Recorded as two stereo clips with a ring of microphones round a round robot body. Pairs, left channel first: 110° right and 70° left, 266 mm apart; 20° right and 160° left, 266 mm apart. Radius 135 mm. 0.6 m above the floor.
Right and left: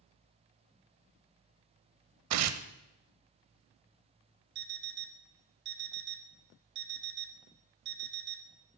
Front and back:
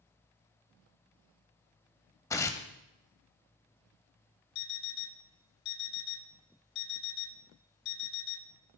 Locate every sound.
2.3 s tearing paper: 55° left, 0.5 m
4.5 s an alarm clock: 15° left, 0.5 m